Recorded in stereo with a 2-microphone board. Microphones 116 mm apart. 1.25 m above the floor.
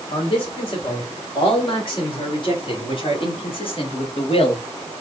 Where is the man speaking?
45° left (ahead or behind), 5.5 m; by 4.9 s 60° left (ahead or behind), 1.6 m.